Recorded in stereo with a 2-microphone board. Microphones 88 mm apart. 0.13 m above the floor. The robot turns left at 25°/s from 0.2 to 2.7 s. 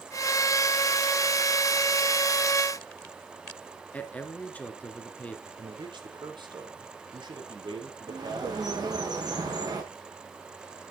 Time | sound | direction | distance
3.9 | a man speaking | 15° left (ahead or behind) | 2 m
5.6 | a man speaking | 65° right (ahead or behind) | 4.5 m
8.1 | a bird | 50° right (ahead or behind) | 6.5 m